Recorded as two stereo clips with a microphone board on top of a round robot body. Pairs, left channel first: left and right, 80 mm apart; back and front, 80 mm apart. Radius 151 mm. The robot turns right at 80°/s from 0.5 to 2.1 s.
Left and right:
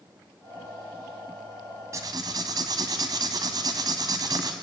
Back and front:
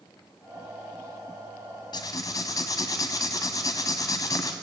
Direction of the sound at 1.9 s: 145° right.